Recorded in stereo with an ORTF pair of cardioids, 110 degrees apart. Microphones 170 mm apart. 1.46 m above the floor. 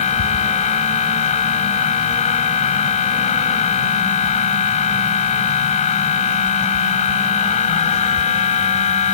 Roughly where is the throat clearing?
No throat clearing in this recording.